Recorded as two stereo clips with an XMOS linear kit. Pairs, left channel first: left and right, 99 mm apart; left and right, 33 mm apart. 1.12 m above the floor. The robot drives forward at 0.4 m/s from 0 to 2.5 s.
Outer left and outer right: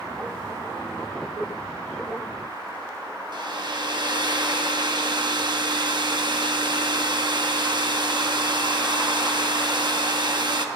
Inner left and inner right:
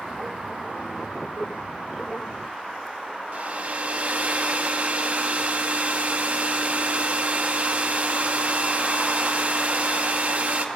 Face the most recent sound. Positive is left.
turn(degrees=-50)  # may be behind; listen again after turning